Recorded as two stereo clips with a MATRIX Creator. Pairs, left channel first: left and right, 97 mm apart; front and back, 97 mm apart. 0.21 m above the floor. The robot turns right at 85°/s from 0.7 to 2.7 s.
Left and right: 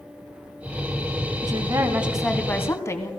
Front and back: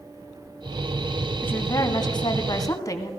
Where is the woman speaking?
70° right, 1.6 m; by 3.1 s 40° left, 1.6 m.